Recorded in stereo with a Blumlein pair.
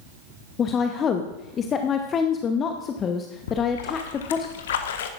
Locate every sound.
0.6 s a woman speaking: 25° left, 0.8 m
3.5 s a splash: 60° left, 0.9 m